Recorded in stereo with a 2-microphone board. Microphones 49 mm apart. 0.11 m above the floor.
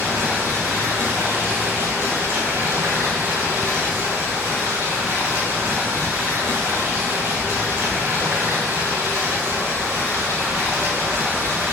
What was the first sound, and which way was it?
Running water, 55° right (ahead or behind).